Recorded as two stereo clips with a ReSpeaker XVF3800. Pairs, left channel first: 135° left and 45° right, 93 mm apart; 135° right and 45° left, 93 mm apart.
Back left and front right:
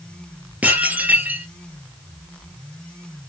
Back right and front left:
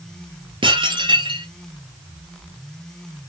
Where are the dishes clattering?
25° left, 2.5 m.